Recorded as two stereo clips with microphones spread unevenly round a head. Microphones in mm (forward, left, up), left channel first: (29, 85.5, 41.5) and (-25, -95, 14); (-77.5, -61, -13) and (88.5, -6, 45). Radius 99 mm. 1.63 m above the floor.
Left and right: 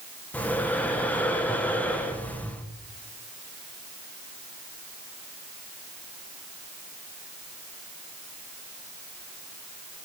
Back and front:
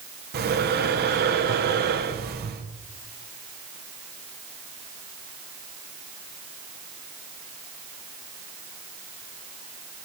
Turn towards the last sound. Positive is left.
turn(degrees=-10)